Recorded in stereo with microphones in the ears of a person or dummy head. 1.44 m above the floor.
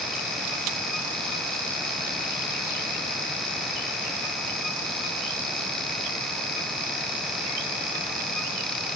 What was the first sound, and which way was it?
Only background noise.